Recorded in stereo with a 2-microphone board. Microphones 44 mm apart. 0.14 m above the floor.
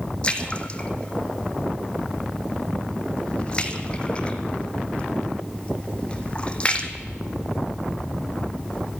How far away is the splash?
About 1.2 m.